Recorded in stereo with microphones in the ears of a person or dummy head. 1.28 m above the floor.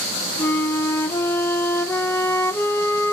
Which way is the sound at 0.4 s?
15° left (ahead or behind).